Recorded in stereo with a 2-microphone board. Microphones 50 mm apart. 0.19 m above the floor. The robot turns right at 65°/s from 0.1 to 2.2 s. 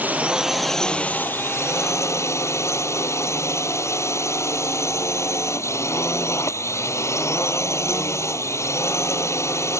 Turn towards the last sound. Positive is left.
turn(degrees=105)